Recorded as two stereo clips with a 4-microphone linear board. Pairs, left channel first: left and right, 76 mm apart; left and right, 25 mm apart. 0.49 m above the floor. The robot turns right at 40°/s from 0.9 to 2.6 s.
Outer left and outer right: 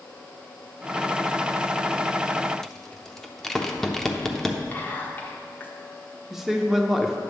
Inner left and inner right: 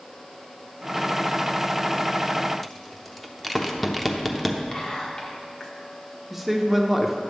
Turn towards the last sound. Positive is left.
turn(degrees=-5)  # may be behind; listen again after turning